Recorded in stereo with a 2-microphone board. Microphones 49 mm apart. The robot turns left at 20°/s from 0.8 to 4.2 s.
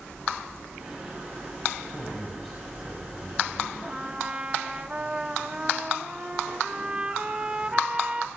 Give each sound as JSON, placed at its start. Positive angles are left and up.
{"t": 1.9, "sound": "a man speaking", "azimuth_deg": 10, "distance_m": 5.0}
{"t": 3.8, "sound": "a trumpet", "side_deg": -20, "distance_m": 1.1}